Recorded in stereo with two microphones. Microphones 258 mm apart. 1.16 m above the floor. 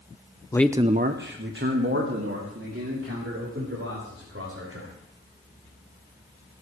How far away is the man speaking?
About 0.6 m.